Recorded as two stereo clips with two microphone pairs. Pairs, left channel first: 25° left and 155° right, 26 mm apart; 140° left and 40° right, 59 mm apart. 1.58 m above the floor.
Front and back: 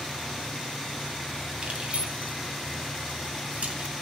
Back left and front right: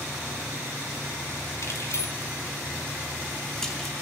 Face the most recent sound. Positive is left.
turn(degrees=-135)